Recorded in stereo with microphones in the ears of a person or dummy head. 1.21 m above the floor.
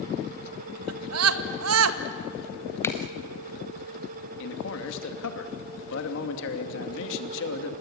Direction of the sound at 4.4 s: 70° left (ahead or behind).